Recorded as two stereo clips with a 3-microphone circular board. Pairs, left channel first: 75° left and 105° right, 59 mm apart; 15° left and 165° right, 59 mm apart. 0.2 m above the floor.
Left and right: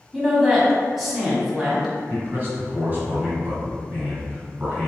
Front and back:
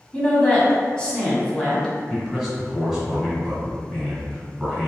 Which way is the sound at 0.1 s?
30° right.